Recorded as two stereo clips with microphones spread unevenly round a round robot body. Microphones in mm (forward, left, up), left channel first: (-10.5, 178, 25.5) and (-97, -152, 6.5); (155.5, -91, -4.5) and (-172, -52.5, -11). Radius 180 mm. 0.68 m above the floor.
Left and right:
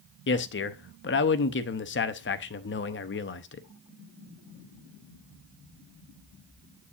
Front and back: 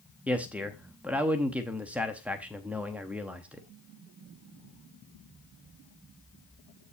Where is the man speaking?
95° left, 0.7 m.